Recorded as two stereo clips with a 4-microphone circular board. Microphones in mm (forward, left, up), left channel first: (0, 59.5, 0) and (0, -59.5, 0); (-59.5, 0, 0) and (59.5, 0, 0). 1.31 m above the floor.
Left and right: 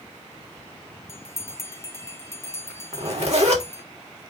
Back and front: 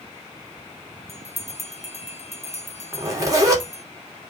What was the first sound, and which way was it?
A bell, 155° left.